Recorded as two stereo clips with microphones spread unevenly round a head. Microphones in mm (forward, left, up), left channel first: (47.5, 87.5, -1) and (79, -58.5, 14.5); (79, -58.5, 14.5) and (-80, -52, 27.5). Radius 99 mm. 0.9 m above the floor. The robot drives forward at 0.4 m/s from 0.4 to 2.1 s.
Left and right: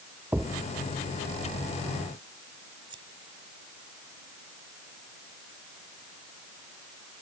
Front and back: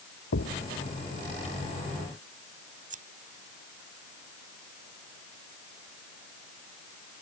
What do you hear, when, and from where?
0.3 s a thud: straight ahead
2.9 s scissors: 145° right